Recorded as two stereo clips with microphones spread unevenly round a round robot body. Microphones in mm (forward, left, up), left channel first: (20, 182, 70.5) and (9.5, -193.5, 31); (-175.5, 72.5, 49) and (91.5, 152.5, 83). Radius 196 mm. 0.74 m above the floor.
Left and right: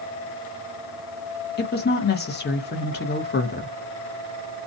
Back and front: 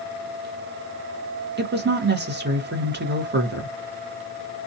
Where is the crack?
No crack in this recording.